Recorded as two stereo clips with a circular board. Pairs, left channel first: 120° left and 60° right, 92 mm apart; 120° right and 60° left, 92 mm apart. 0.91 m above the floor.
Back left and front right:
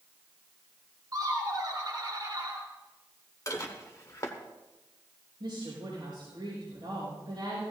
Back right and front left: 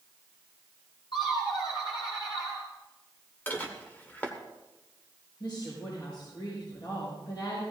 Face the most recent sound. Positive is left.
turn(degrees=-90)